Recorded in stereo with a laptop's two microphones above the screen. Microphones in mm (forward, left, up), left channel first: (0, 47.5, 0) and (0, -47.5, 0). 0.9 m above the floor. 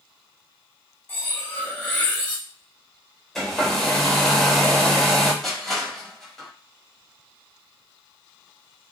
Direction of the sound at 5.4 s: Centre (ahead or behind).